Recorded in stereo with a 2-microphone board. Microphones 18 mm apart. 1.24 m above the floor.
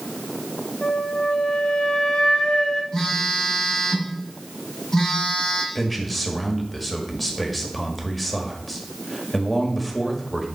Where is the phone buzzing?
20° left (ahead or behind), 5 m.